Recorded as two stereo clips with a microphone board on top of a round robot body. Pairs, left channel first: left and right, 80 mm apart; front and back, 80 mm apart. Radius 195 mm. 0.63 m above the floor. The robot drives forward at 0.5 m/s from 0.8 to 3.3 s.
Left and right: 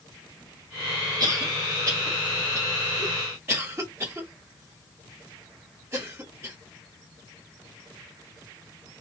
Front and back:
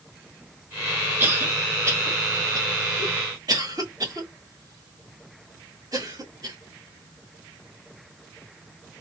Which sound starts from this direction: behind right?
A cough, at 1.2 s.